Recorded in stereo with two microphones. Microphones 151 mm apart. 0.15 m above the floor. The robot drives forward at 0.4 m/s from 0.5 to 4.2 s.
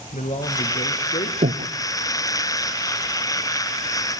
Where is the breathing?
70° right (ahead or behind), 1.0 m; by 1.7 s 80° right, 0.9 m.